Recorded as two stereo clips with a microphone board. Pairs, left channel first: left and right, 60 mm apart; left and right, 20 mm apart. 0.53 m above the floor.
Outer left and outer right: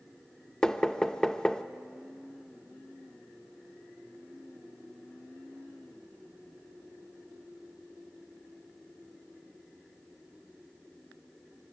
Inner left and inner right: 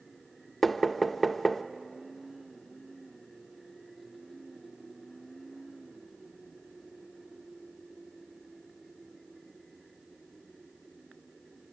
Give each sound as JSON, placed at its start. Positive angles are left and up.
{"t": 0.6, "sound": "knocking", "side_deg": 15, "distance_m": 0.7}